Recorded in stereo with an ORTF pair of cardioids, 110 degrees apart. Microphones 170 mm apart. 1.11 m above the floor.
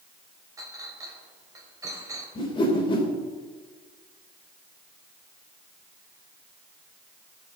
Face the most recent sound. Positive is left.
turn(degrees=30)